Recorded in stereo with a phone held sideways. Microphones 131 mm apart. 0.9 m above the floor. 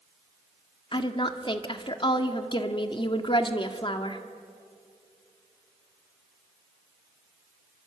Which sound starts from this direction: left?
A woman speaking, at 0.9 s.